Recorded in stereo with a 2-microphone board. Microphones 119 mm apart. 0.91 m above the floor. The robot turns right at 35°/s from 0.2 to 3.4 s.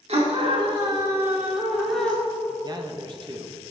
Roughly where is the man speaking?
Right.